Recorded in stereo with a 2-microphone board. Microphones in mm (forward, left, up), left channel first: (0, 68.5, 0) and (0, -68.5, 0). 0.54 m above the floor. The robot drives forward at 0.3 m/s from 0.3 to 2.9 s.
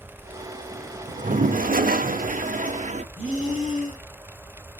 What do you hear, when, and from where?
1.1 s a toilet flushing: 60° right (ahead or behind), 0.6 m; by 3.0 s 55° right (ahead or behind), 0.6 m
3.1 s breathing: 65° right (ahead or behind), 6.5 m